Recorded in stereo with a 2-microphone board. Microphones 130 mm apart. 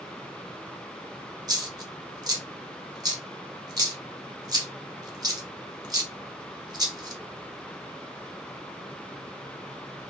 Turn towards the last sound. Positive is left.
turn(degrees=-30)  # may be behind; listen again after turning